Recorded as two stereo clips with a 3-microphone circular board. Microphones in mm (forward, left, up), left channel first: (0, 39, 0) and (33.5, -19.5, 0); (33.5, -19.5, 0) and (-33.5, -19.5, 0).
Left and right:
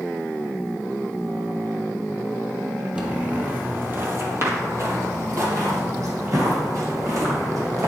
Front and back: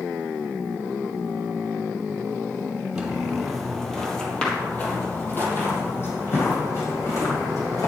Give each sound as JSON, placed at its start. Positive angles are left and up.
{"t": 3.0, "sound": "footsteps", "azimuth_deg": -115, "distance_m": 1.7}